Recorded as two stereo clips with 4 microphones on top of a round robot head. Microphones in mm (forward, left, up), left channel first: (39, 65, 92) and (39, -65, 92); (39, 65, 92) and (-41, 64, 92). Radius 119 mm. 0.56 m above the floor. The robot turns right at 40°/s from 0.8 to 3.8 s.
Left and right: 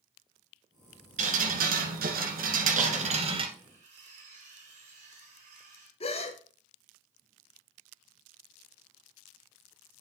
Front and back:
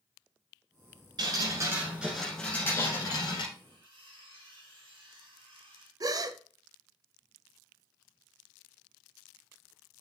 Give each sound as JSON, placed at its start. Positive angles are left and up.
{"t": 1.2, "sound": "dripping", "azimuth_deg": -130, "distance_m": 1.5}
{"t": 3.5, "sound": "cutlery clinking", "azimuth_deg": -140, "distance_m": 4.5}
{"t": 6.0, "sound": "a gasp", "azimuth_deg": 140, "distance_m": 0.7}